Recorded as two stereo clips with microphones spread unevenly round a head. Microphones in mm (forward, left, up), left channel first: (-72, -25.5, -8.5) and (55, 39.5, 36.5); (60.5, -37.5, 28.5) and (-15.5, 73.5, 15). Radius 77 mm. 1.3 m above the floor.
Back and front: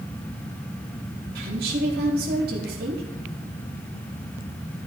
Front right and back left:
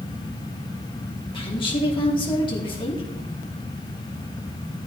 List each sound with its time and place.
1.4 s a woman speaking: 5° right, 4 m